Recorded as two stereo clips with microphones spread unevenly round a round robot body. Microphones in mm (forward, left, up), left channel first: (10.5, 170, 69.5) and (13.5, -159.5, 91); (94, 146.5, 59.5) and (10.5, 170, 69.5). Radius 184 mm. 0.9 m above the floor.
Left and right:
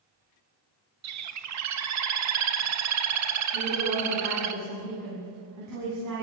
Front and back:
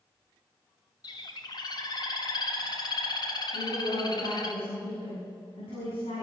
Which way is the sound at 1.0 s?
50° right.